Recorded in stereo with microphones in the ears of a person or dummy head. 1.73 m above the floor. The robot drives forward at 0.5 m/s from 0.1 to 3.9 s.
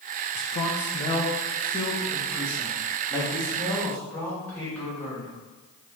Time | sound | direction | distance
0.3 | a man speaking | 45° left (ahead or behind) | 0.6 m